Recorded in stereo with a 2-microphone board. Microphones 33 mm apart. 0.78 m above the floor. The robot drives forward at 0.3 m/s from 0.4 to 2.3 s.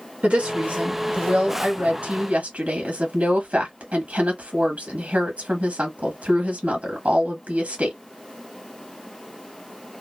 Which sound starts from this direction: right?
A woman speaking, at 0.2 s.